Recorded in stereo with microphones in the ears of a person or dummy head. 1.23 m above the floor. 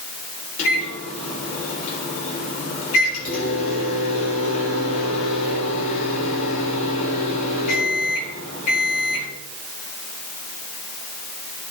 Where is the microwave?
45° left (ahead or behind), 3.5 m.